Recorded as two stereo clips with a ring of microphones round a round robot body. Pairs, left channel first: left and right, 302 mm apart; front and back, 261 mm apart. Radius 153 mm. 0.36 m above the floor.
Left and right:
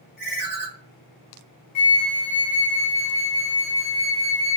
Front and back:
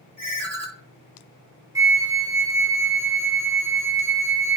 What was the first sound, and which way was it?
A ringtone, 140° left.